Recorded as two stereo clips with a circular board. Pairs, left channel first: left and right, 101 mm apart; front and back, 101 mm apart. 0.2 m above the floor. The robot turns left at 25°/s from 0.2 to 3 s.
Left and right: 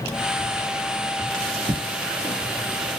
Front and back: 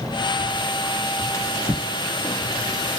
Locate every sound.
1.3 s a drawer: 55° right, 2.0 m; by 2.4 s 80° right, 2.0 m